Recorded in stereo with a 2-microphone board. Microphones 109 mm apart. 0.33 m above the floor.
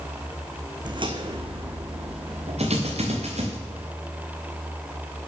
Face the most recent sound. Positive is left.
turn(degrees=-85)